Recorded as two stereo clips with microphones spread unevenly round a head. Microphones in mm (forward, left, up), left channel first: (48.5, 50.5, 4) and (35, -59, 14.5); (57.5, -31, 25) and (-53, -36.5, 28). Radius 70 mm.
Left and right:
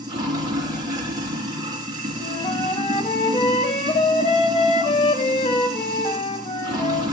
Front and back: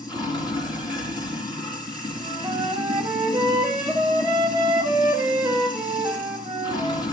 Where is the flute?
120° left, 1.5 m.